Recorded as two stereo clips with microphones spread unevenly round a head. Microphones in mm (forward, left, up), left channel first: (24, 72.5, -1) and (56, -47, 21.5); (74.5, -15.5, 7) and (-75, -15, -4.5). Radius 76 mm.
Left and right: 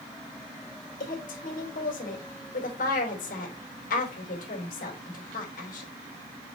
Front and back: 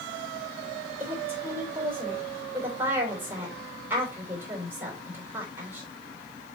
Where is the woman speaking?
100° left, 3 m.